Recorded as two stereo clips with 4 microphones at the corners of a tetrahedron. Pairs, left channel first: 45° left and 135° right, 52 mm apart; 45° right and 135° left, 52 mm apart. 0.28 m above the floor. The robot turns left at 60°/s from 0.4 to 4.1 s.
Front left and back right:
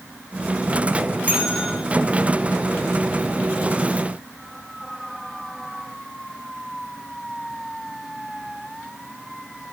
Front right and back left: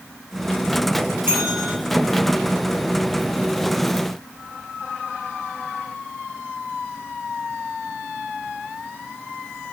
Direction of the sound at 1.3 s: 170° left.